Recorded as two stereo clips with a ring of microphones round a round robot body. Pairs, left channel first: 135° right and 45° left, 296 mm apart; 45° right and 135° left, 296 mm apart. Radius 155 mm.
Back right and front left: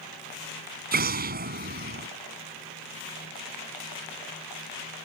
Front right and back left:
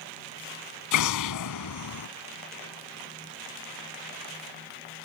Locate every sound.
0.9 s an explosion: 15° right